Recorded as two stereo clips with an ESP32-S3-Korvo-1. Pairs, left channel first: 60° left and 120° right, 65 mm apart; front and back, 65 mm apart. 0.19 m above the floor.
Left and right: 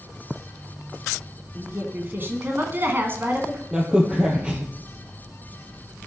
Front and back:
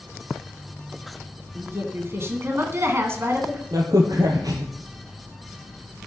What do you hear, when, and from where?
1.6 s a woman speaking: 160° right, 2 m
3.7 s a crack: 165° left, 2.5 m